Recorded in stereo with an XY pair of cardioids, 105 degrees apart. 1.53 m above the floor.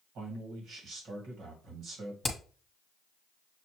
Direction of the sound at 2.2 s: 25° left.